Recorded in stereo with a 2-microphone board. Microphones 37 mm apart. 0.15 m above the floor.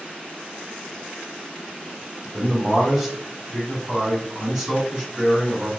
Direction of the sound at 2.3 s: 5° right (ahead or behind).